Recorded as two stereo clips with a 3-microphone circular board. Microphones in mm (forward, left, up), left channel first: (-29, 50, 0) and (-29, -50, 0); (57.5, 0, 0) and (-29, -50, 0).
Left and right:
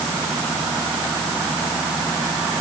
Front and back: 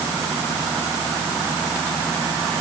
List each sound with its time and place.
Only background noise.